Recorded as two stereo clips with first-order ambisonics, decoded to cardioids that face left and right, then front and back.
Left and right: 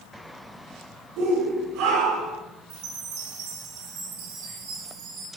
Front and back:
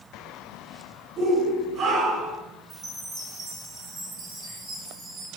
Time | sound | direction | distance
1.2 | a shout | 105° right | 7 m
2.7 | a chime | 100° right | 6.5 m